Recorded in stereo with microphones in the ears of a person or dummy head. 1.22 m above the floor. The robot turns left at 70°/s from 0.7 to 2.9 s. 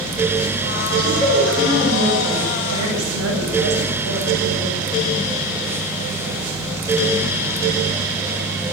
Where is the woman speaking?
35° left, 8 m; by 4.7 s 100° right, 8 m.